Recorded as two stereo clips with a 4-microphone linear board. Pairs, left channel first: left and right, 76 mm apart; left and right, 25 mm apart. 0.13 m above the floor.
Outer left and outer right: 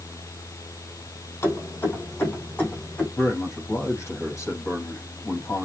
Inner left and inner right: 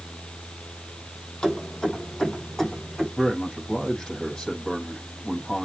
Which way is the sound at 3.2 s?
35° left (ahead or behind).